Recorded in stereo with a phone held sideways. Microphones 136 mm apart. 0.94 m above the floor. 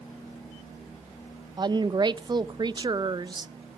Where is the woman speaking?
35° right (ahead or behind), 0.5 m.